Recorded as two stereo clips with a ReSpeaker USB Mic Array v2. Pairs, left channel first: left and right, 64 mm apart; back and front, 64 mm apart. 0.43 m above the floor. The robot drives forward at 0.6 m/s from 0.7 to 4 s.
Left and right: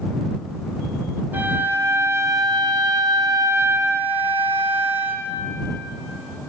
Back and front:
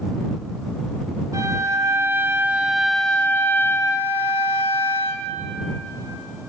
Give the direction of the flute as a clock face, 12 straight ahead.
1 o'clock.